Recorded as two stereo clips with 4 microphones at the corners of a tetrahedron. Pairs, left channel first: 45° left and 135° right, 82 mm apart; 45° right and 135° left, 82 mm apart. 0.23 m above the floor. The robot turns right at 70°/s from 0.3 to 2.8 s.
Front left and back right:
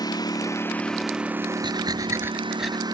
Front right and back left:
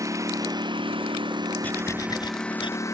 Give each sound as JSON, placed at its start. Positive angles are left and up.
{"t": 0.0, "sound": "a lawn mower", "azimuth_deg": 85}
{"t": 1.6, "sound": "breathing", "azimuth_deg": -115}